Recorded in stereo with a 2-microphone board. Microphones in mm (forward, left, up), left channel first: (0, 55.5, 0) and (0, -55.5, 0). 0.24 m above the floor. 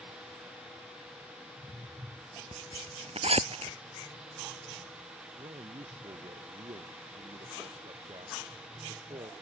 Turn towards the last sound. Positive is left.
turn(degrees=-50)  # may be behind; listen again after turning